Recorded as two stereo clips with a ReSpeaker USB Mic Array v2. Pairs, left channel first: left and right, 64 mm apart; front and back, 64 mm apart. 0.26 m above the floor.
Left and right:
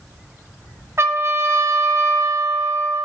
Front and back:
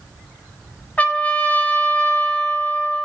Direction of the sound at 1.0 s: 65° right.